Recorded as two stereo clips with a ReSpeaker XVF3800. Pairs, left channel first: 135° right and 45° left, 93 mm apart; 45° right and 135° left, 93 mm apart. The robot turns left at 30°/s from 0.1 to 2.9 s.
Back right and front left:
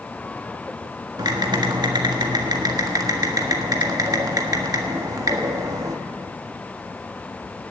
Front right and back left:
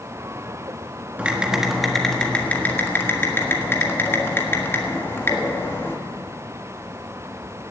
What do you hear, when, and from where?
1.2 s typing on a keyboard: 65° left, 1.5 m; by 6.0 s 10° left, 1.5 m